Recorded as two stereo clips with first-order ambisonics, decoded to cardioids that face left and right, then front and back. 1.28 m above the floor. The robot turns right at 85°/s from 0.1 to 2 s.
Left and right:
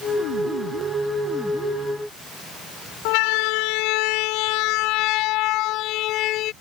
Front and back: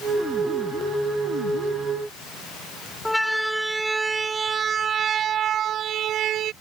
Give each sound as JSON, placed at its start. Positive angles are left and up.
{"t": 3.0, "sound": "a siren", "azimuth_deg": 85}